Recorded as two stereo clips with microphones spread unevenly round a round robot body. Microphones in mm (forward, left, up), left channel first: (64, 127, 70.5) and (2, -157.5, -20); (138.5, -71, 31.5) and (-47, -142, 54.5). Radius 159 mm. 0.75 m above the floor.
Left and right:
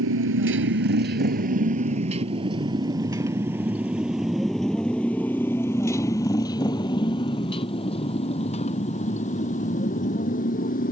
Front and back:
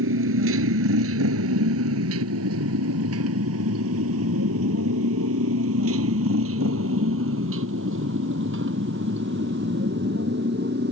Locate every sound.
0.0 s a motorcycle: 155° right; by 10.9 s 140° left